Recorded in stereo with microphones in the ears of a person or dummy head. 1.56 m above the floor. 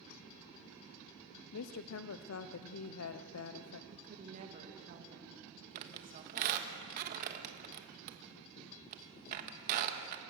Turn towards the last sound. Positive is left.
turn(degrees=-45)  # may be behind; listen again after turning